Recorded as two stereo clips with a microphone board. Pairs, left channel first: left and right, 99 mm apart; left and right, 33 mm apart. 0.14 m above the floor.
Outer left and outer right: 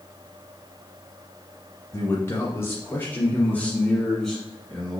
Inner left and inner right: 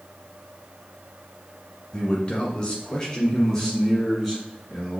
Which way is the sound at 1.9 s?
30° left (ahead or behind).